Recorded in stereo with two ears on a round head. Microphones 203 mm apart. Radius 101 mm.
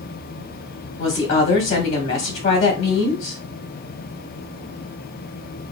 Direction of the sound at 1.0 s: 30° left (ahead or behind).